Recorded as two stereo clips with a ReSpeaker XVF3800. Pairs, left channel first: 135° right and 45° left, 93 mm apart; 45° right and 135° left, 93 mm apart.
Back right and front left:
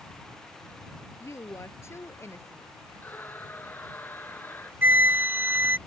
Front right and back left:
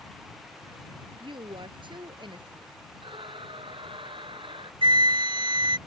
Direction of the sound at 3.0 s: 155° left.